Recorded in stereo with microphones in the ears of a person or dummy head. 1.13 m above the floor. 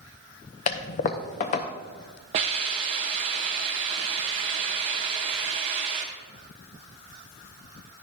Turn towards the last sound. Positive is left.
turn(degrees=-30)  # may be behind; listen again after turning